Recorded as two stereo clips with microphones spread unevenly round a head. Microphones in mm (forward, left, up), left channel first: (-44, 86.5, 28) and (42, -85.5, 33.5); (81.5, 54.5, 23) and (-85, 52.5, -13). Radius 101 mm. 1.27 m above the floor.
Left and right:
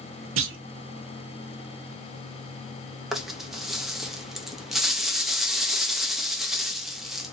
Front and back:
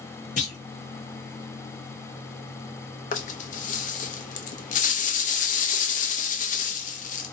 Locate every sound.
0.4 s a clunk: 45° right, 0.7 m
3.1 s a rattle: 25° left, 0.6 m